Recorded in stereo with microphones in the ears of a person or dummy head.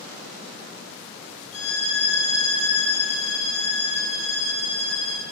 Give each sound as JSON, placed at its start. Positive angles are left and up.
{"t": 1.5, "sound": "a violin", "side_deg": 80, "distance_m": 7.0}